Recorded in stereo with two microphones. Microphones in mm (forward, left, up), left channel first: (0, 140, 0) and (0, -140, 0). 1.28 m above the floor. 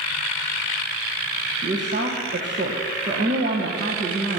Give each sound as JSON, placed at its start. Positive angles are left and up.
{"t": 1.6, "sound": "a woman speaking", "side_deg": -40, "distance_m": 1.1}